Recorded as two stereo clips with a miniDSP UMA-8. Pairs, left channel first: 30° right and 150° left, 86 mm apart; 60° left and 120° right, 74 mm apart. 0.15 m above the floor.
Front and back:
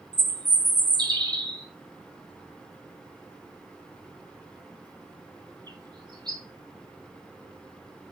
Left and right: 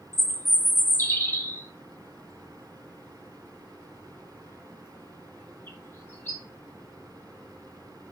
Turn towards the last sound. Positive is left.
turn(degrees=120)